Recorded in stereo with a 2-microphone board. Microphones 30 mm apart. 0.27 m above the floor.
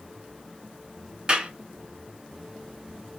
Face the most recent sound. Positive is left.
turn(degrees=-30)  # may be behind; listen again after turning